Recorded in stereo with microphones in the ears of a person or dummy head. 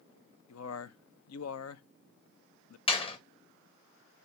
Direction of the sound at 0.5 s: 85° left.